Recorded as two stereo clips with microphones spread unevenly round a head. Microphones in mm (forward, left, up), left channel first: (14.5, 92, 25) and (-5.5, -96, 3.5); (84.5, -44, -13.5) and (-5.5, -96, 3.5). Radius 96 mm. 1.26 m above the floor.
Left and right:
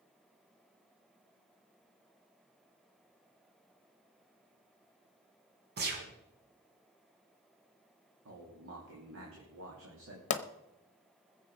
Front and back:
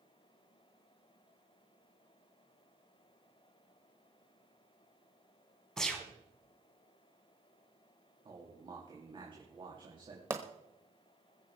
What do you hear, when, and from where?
5.8 s a gunshot: 55° right, 3 m
8.2 s a man speaking: 105° right, 3 m
10.3 s a pop: 135° left, 0.9 m